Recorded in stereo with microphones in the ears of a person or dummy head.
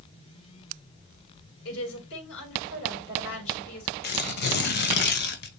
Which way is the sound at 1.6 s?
70° left (ahead or behind).